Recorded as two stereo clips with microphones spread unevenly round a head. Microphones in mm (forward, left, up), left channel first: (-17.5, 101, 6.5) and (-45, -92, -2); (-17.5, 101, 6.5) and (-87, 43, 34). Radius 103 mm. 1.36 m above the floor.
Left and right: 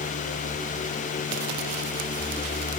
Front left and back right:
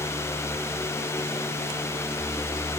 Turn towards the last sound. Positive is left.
No sound to turn to.